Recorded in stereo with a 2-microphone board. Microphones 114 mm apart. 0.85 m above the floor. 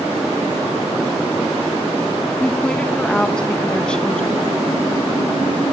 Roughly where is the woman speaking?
Centre.